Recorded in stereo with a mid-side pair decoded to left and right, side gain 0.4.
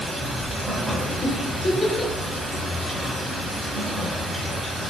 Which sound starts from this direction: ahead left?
A giggle, at 1.2 s.